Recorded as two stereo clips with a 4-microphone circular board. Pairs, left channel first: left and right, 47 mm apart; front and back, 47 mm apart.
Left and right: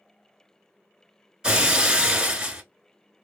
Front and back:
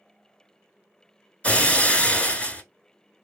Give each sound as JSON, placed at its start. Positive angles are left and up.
{"t": 1.4, "sound": "breaking glass", "azimuth_deg": -30, "distance_m": 1.0}